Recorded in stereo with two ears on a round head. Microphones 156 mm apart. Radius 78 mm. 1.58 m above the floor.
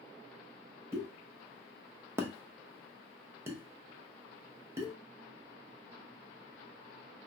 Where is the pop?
15° right (ahead or behind), 0.8 m.